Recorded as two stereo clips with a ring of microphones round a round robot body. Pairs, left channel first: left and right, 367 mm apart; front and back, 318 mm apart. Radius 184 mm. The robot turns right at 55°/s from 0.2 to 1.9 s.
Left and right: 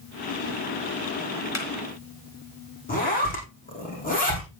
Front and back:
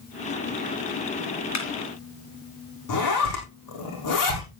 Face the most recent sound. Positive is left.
turn(degrees=20)